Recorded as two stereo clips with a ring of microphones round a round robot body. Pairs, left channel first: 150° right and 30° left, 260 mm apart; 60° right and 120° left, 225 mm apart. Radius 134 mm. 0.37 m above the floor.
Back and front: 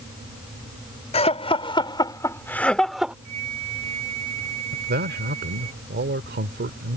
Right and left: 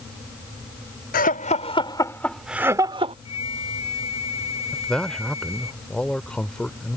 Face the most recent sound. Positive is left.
turn(degrees=25)